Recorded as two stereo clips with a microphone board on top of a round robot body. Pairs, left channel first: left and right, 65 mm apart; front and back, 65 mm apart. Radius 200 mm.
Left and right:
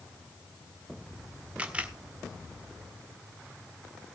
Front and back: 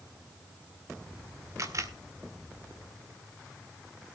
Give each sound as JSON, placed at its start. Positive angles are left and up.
{"t": 1.6, "sound": "a camera shutter", "azimuth_deg": -155, "distance_m": 2.0}